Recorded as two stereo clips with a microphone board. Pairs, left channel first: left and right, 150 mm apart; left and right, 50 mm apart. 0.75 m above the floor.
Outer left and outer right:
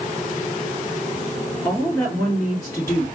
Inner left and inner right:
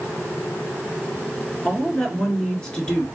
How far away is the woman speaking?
About 2 m.